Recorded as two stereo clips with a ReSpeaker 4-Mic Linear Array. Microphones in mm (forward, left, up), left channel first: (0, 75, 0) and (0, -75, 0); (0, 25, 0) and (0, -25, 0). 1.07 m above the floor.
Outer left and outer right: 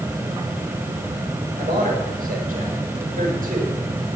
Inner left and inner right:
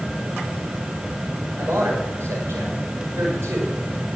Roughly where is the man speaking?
Right.